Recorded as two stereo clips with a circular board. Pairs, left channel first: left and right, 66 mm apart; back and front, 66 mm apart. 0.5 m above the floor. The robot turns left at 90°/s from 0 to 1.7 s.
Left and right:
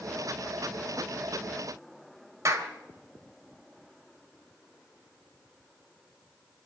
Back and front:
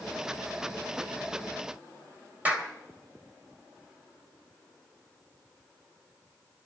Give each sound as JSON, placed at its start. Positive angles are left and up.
{"t": 2.5, "sound": "a clap", "azimuth_deg": -65, "distance_m": 2.5}